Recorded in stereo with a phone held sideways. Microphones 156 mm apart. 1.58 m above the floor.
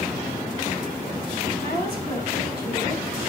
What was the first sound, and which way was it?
A woman speaking, 85° left.